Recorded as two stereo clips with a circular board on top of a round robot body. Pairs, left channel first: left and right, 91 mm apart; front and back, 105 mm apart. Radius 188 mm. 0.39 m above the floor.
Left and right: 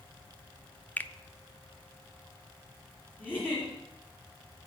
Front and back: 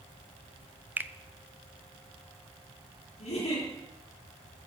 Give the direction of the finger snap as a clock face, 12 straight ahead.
8 o'clock.